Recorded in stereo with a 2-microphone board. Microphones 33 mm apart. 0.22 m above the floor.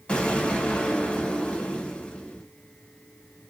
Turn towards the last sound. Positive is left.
turn(degrees=30)  # may be behind; listen again after turning